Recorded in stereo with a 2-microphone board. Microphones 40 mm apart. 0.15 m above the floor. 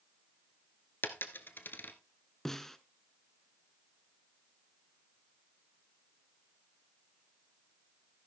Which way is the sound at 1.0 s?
55° left (ahead or behind).